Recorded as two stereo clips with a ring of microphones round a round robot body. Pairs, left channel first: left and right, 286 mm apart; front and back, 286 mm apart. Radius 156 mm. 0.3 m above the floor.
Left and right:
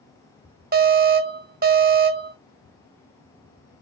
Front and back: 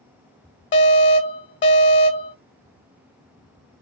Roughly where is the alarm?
Ahead right.